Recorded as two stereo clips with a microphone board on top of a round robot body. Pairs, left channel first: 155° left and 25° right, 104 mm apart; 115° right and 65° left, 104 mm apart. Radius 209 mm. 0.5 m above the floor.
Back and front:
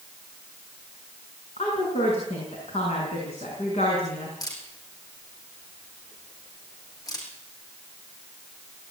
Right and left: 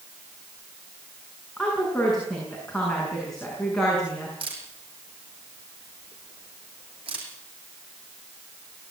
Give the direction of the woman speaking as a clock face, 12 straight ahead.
7 o'clock.